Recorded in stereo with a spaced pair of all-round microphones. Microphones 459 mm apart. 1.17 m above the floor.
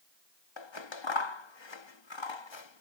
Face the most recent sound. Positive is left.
turn(degrees=65)  # may be behind; listen again after turning